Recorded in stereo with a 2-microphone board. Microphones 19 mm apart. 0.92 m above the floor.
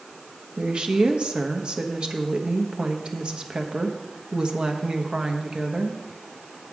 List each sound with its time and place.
0.6 s a woman speaking: 55° right (ahead or behind), 1.1 m